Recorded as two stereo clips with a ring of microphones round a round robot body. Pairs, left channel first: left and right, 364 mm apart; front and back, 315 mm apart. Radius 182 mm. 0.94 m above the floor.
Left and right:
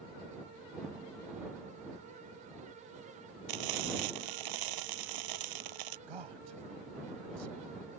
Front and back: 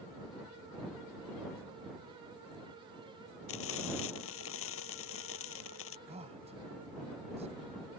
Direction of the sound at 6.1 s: 105° right.